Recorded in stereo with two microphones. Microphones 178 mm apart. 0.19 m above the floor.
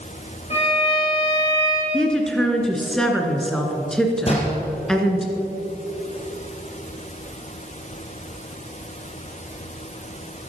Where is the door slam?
35° left (ahead or behind), 4 m.